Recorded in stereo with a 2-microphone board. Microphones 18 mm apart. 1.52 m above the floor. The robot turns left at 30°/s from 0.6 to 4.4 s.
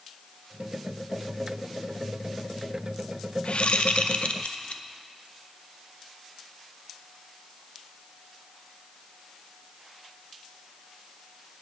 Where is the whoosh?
65° left (ahead or behind), 0.6 m; by 4.8 s 85° left, 0.6 m.